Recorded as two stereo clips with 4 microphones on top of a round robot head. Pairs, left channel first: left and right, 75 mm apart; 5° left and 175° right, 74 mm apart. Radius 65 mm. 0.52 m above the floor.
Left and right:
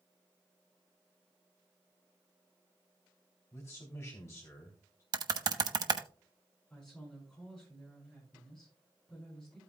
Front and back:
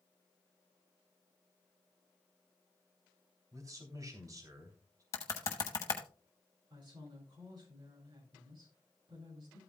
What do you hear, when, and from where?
3.5 s a man speaking: 150° left, 3 m
5.1 s typing on a keyboard: 55° right, 1.0 m
6.7 s a woman speaking: 175° left, 7 m